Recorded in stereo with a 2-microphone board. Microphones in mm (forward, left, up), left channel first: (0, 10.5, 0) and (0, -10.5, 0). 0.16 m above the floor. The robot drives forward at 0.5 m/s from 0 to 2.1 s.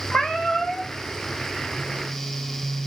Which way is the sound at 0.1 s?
80° left.